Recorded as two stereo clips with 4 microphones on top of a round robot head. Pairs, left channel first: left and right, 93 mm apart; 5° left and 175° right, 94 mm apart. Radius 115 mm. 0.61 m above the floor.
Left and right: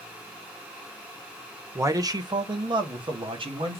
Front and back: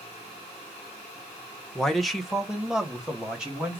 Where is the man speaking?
75° right, 0.8 m; by 3.8 s 95° right, 1.6 m.